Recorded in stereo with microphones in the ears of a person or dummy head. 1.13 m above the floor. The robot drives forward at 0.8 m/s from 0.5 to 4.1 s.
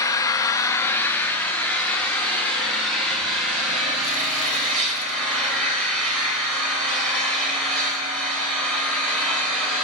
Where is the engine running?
20° left (ahead or behind), 0.8 m; by 9.8 s 5° left (ahead or behind), 3.5 m.